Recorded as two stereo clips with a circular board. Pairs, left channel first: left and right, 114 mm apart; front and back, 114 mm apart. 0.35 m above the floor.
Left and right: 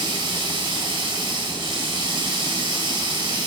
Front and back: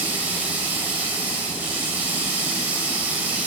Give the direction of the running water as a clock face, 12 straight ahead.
4 o'clock.